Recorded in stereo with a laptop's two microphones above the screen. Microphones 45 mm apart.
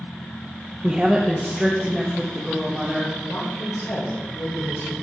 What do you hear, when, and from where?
0.8 s a woman speaking: 20° right (ahead or behind), 0.5 m; by 3.1 s centre (ahead or behind), 1.7 m
3.2 s a woman speaking: 70° left (ahead or behind), 4 m